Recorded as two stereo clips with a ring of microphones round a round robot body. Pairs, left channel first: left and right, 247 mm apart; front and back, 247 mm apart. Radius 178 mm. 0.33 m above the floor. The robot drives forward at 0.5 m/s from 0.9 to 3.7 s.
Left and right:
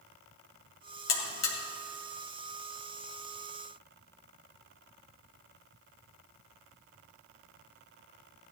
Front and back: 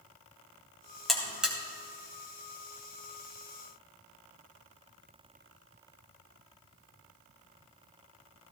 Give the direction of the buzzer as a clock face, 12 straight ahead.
9 o'clock.